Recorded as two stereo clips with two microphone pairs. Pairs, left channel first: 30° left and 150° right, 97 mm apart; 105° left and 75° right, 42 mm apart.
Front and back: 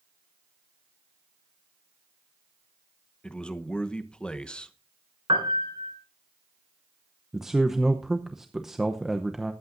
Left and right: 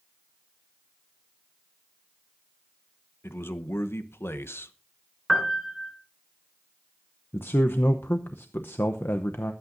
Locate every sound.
3.2 s a man speaking: 110° left, 0.9 m
5.3 s a piano: 165° right, 2 m
7.3 s a man speaking: 125° left, 0.7 m